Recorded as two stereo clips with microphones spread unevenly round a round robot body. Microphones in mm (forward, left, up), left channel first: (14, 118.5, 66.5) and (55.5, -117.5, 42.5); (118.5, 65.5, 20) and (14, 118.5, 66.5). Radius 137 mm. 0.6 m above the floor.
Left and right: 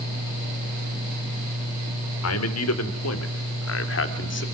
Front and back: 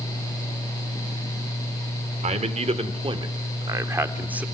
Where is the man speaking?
120° left, 3 m; by 4.5 s 60° left, 2.5 m.